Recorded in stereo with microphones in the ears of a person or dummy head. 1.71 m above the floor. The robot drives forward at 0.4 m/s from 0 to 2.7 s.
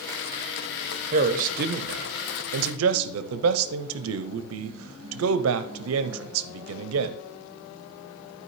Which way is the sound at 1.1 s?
40° right (ahead or behind).